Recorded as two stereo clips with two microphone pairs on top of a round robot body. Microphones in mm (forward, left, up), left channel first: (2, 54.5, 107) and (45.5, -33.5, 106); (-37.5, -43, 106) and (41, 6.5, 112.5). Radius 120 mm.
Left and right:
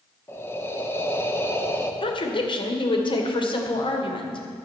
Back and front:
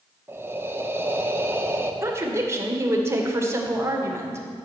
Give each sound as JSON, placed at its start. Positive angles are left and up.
{"t": 0.3, "sound": "breathing", "azimuth_deg": 75, "distance_m": 1.5}
{"t": 2.0, "sound": "a woman speaking", "azimuth_deg": 95, "distance_m": 2.5}